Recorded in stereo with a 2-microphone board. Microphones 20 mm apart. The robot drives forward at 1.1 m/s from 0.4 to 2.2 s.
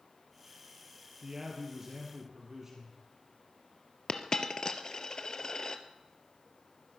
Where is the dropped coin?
30° left (ahead or behind), 1.0 m.